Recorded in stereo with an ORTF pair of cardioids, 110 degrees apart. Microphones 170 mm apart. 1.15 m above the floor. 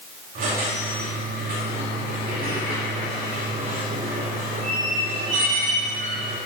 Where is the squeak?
50° right, 2.5 m.